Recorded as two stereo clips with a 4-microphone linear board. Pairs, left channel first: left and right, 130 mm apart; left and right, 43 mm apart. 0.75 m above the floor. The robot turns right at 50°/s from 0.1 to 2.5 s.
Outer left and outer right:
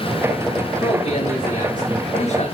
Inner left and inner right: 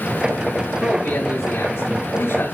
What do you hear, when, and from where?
0.8 s a man speaking: 45° left, 7.5 m; by 2.5 s 130° left, 7.5 m